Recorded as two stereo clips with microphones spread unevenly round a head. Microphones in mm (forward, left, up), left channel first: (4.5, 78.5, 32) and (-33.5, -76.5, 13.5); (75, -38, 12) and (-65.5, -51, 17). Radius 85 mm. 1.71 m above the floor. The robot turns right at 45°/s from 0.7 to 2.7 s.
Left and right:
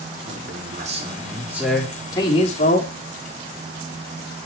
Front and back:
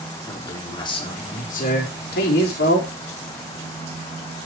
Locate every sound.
0.3 s a man speaking: 60° right, 4.5 m; by 2.9 s 30° left, 4.5 m